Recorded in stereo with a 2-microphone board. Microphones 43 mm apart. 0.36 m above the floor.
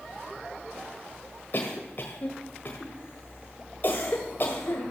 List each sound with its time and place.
1.5 s a cough: 50° left (ahead or behind), 1.5 m